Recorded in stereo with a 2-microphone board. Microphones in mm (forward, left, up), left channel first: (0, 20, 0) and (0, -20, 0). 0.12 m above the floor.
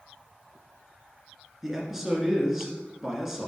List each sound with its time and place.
1.6 s a man speaking: 10° right (ahead or behind), 1.3 m